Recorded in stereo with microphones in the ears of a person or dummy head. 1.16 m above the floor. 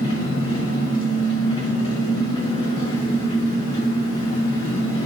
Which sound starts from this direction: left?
An engine running, at 0.0 s.